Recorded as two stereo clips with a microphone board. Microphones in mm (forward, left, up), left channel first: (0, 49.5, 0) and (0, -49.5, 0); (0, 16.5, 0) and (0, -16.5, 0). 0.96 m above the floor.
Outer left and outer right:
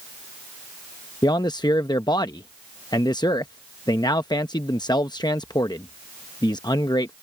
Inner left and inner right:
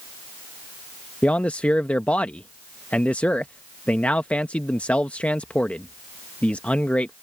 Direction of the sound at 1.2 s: 45° left (ahead or behind).